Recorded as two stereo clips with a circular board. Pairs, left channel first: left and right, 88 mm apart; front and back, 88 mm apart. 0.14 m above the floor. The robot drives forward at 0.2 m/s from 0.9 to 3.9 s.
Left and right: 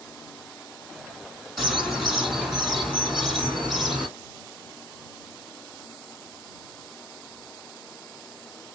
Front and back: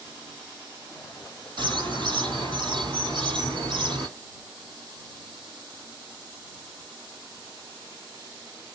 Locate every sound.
1.6 s a bird: straight behind, 2.5 m